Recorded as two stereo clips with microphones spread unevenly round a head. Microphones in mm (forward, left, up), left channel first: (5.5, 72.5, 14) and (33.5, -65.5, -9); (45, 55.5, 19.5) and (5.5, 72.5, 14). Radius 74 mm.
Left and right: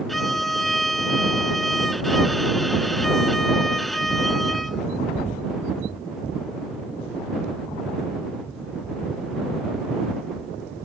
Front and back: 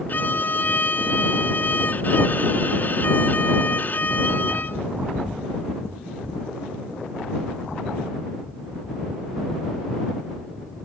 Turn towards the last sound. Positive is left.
turn(degrees=15)